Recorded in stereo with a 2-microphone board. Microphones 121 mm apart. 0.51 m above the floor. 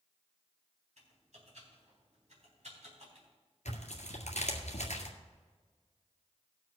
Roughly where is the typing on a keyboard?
Right.